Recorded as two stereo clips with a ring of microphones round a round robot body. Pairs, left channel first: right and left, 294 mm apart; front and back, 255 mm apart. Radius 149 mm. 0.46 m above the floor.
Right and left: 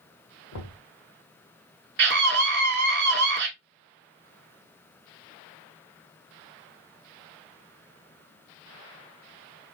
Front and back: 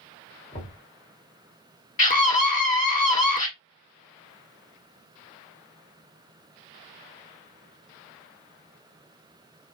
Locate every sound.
0.5 s knocking: 75° right, 1.5 m
2.0 s a scream: 50° left, 1.6 m